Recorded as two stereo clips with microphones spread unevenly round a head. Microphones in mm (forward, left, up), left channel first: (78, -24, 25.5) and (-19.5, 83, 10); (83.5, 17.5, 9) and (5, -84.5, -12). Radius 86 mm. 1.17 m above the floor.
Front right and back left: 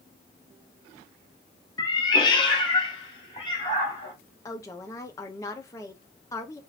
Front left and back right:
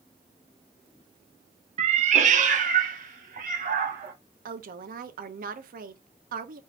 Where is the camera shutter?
I don't hear a camera shutter.